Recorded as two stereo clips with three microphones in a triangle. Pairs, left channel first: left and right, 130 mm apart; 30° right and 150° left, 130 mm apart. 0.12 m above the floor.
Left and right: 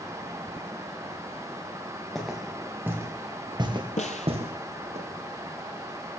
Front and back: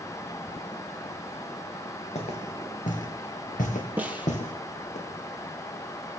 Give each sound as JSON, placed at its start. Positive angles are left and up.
{"t": 2.1, "sound": "footsteps", "azimuth_deg": 0, "distance_m": 3.0}
{"t": 4.0, "sound": "a snare drum", "azimuth_deg": 75, "distance_m": 1.6}